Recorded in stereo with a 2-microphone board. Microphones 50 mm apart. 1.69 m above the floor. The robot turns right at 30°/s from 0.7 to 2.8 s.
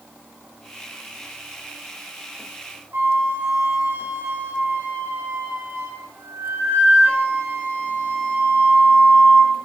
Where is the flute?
55° right (ahead or behind), 2 m.